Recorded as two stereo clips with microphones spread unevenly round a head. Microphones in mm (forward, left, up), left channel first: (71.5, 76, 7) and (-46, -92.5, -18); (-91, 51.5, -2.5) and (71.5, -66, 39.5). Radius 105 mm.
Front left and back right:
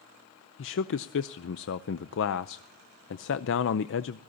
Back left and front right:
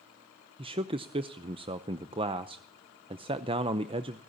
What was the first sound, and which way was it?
A man speaking, 35° left.